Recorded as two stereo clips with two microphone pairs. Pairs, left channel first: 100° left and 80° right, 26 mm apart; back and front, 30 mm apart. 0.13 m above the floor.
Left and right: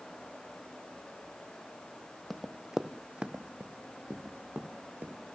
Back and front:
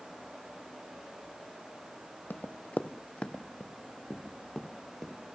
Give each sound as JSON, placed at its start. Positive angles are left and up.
{"t": 2.3, "sound": "running footsteps", "azimuth_deg": -170, "distance_m": 1.1}